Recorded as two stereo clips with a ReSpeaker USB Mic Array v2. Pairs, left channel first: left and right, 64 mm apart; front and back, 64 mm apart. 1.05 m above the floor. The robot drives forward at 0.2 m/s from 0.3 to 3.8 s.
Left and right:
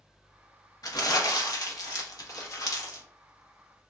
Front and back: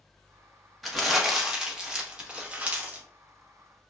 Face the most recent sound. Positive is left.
turn(degrees=120)